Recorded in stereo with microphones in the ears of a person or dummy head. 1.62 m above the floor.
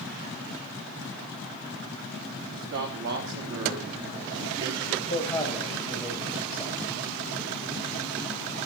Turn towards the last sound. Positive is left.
turn(degrees=0)  # may be behind; listen again after turning